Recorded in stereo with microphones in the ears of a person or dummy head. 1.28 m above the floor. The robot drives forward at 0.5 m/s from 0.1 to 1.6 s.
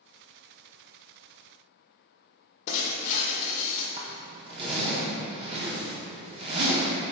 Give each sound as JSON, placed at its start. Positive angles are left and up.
{"t": 2.7, "sound": "breaking glass", "side_deg": 45, "distance_m": 0.7}
{"t": 4.0, "sound": "a zipper", "side_deg": -35, "distance_m": 0.7}